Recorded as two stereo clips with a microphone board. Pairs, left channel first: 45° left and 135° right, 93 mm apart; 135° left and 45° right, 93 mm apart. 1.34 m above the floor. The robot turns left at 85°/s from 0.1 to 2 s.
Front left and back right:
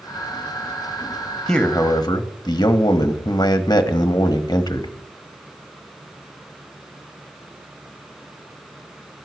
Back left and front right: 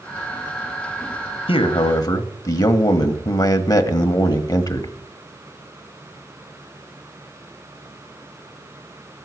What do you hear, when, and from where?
1.5 s a man speaking: 135° left, 1.3 m; by 4.9 s 90° left, 1.3 m